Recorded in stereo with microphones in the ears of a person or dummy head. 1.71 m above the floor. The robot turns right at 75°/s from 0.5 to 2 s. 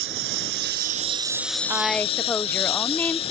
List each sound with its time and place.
0.0 s a lawn mower: 80° right; by 3.3 s 30° left
1.7 s a woman speaking: 15° right (ahead or behind); by 3.3 s 10° left (ahead or behind)